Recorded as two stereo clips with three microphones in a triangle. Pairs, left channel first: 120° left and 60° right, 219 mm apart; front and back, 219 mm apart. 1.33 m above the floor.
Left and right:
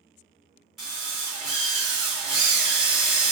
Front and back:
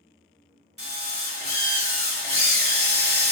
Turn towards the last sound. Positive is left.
turn(degrees=-150)